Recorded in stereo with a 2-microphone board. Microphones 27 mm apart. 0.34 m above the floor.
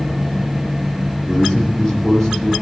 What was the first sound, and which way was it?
A man speaking, 15° left (ahead or behind).